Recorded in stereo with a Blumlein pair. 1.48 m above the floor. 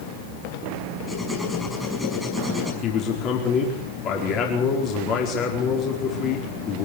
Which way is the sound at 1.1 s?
10° left.